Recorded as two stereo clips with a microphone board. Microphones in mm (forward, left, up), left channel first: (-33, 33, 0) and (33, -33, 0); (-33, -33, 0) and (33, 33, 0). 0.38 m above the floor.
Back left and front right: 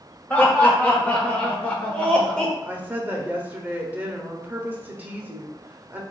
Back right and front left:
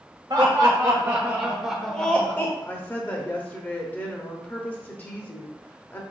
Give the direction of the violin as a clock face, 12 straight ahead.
I don't hear a violin.